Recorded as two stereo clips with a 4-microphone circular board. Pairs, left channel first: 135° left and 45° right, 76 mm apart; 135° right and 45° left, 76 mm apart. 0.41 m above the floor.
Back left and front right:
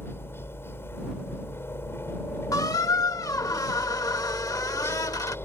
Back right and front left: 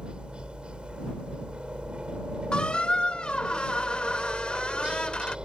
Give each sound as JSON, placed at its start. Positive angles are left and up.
{"t": 0.0, "sound": "a helicopter", "azimuth_deg": 115}
{"t": 2.5, "sound": "a squeak", "azimuth_deg": 150}